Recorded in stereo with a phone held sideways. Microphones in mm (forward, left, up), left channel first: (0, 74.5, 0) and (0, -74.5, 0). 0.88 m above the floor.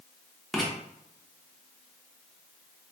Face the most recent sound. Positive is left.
turn(degrees=0)  # may be behind; listen again after turning